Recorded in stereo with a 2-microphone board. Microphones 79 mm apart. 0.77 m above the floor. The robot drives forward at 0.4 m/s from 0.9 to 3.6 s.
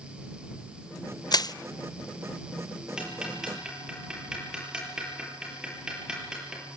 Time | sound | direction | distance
1.3 | crushing | 60° left (ahead or behind) | 0.6 m
3.0 | ticking | 10° right (ahead or behind) | 8 m